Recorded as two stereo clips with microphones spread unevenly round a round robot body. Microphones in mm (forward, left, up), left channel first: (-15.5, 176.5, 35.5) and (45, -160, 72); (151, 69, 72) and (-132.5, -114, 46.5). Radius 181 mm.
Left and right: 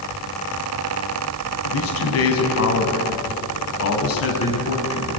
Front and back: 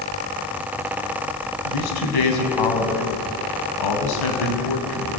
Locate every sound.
1.6 s a man speaking: 50° left, 5 m